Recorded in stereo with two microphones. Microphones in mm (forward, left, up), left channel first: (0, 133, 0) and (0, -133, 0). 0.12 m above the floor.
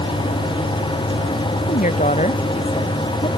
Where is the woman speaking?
30° left (ahead or behind); by 3.3 s 20° left (ahead or behind).